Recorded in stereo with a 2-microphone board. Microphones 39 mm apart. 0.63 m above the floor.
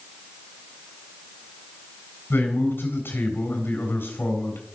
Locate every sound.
2.3 s a man speaking: 65° left (ahead or behind), 3.5 m